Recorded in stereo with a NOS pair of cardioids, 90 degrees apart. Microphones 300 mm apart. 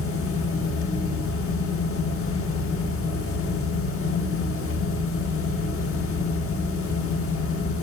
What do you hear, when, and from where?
0.0 s a fan: 45° left, 1.3 m